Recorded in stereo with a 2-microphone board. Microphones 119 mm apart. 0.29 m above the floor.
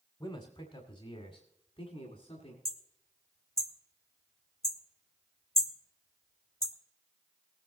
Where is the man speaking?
45° left (ahead or behind), 1.3 m; by 2.5 s 60° left (ahead or behind), 2.5 m.